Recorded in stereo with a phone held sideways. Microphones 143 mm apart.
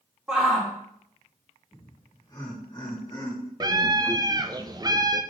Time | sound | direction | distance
0.3 | a shout | 5° right (ahead or behind) | 2.5 m
1.7 | laughter | 30° left (ahead or behind) | 2.5 m
3.6 | a scream | 25° right (ahead or behind) | 0.7 m